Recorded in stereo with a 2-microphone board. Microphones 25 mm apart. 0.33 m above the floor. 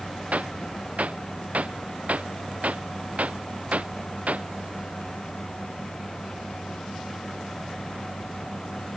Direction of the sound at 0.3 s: 75° right (ahead or behind).